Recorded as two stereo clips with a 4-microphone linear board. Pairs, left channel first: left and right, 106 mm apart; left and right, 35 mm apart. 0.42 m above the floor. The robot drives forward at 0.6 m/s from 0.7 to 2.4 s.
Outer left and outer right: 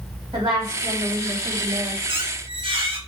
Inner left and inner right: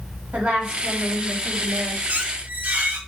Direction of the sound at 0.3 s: 50° right (ahead or behind).